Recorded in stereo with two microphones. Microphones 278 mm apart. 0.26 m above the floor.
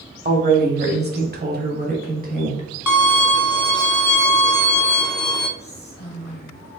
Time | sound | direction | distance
0.2 | a woman speaking | 35° right (ahead or behind) | 1.0 m
2.9 | a violin | 85° left | 0.7 m
5.6 | whispering | 35° left (ahead or behind) | 1.2 m